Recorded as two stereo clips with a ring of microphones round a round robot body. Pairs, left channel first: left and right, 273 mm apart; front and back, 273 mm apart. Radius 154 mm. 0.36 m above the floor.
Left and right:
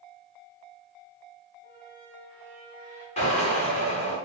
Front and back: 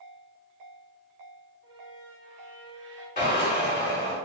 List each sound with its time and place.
1.6 s a squeak: 155° left, 1.7 m
3.2 s a drill: 40° left, 1.8 m